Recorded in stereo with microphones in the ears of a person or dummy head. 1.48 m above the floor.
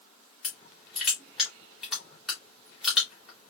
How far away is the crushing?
About 3 m.